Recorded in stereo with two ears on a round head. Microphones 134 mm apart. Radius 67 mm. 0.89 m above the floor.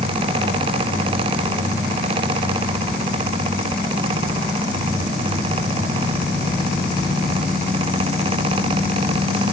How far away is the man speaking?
I don't hear a man speaking.